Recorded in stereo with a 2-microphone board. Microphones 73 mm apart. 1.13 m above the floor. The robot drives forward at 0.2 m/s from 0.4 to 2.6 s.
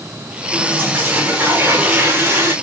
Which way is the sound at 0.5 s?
30° right (ahead or behind).